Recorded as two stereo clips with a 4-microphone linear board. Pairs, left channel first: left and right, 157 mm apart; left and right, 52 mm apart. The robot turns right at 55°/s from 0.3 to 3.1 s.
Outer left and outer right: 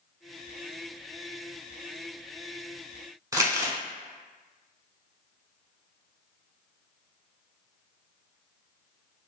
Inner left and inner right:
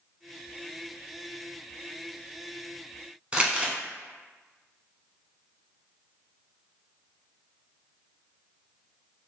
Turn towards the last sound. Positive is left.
turn(degrees=-20)  # may be behind; listen again after turning